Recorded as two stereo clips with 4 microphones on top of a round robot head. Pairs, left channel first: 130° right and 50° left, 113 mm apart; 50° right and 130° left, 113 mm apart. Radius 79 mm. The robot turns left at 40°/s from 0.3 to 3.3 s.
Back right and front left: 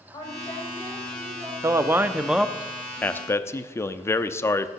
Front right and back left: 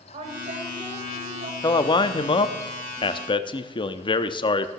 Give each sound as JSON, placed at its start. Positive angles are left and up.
{"t": 0.1, "sound": "a woman speaking", "azimuth_deg": 170, "distance_m": 3.5}
{"t": 1.6, "sound": "a man speaking", "azimuth_deg": -5, "distance_m": 0.9}